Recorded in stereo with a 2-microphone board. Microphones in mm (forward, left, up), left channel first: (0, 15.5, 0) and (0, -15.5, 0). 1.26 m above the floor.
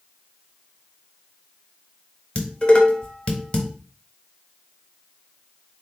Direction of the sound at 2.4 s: 40° left (ahead or behind).